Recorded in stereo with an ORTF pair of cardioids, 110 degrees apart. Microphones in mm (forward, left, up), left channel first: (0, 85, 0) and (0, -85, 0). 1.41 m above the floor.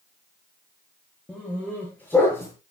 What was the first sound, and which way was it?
A dog barking, 5° left.